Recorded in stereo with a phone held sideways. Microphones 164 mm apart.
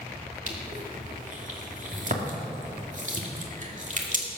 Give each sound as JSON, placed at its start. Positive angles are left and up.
{"t": 0.5, "sound": "crushing", "side_deg": -50, "distance_m": 2.5}